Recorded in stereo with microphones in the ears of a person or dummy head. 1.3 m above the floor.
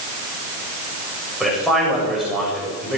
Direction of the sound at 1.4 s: Centre (ahead or behind).